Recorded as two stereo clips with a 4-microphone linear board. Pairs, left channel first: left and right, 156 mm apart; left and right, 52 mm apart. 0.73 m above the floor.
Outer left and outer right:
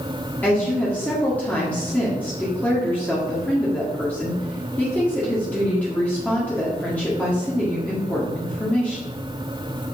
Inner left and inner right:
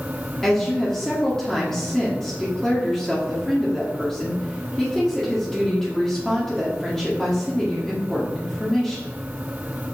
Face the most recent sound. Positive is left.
turn(degrees=10)  # may be behind; listen again after turning